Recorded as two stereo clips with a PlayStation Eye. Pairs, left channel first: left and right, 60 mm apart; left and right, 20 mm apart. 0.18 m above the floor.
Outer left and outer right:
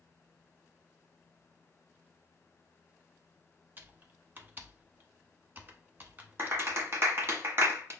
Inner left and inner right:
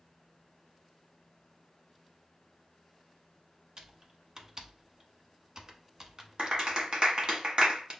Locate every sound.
3.8 s typing on a keyboard: 30° right (ahead or behind), 0.8 m
6.4 s a clap: 45° right (ahead or behind), 1.4 m